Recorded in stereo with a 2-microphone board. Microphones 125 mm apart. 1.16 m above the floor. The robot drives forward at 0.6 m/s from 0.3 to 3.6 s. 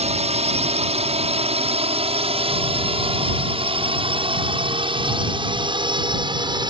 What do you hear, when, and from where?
0.0 s a drone: 60° right (ahead or behind); by 6.7 s 35° right (ahead or behind)